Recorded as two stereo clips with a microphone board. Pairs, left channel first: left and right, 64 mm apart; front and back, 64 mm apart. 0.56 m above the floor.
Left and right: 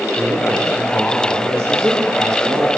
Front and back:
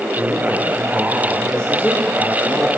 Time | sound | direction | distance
0.2 | a man speaking | 70° right | 2 m